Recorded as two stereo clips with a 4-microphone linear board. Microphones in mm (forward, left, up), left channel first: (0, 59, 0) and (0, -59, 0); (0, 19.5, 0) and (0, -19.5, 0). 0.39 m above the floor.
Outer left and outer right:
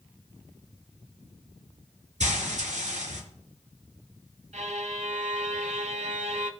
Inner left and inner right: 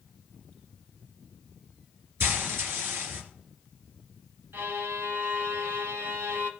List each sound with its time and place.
2.2 s frying: 80° right, 3 m
4.5 s a violin: 80° right, 0.9 m